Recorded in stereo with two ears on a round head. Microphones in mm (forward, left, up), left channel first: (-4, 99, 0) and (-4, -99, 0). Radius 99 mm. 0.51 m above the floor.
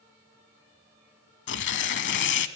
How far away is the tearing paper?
About 0.7 m.